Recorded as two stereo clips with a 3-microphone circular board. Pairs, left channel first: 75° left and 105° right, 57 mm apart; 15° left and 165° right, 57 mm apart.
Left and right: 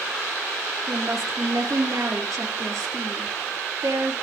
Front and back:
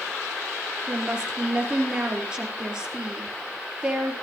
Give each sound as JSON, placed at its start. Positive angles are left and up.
{"t": 0.9, "sound": "a woman speaking", "azimuth_deg": -90, "distance_m": 4.5}